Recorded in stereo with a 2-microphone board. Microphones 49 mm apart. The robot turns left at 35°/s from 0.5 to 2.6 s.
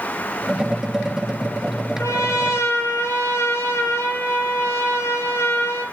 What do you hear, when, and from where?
2.0 s a trumpet: 85° left, 8 m; by 5.8 s 60° left (ahead or behind), 8 m